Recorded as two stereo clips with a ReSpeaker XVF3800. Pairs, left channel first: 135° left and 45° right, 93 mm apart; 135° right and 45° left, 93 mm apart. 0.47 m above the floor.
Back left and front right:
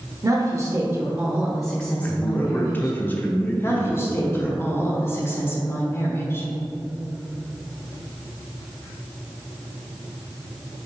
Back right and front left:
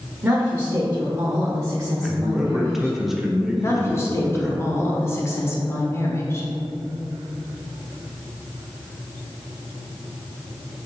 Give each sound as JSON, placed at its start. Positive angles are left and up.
{"t": 0.2, "sound": "a woman speaking", "azimuth_deg": -20, "distance_m": 1.1}
{"t": 2.0, "sound": "a man speaking", "azimuth_deg": 125, "distance_m": 0.8}
{"t": 3.6, "sound": "a woman speaking", "azimuth_deg": 180, "distance_m": 1.2}